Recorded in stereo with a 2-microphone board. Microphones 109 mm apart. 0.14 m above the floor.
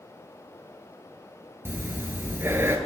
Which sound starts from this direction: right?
Breathing, at 1.6 s.